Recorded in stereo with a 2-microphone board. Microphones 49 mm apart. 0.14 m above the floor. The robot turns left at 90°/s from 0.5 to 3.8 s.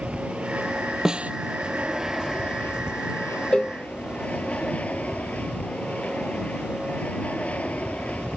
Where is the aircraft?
30° right; by 8.4 s 30° left.